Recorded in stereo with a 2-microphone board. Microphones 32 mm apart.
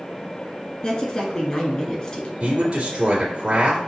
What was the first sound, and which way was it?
A woman speaking, 25° left (ahead or behind).